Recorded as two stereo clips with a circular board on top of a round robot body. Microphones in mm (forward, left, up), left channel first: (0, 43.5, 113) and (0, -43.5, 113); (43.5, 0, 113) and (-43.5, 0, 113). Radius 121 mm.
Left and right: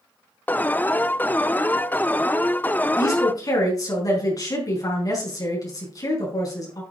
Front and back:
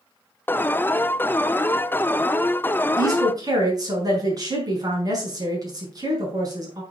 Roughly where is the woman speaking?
Behind left.